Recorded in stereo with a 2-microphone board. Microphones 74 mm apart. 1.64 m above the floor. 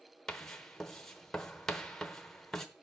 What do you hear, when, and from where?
0.3 s writing: 10° left (ahead or behind), 0.8 m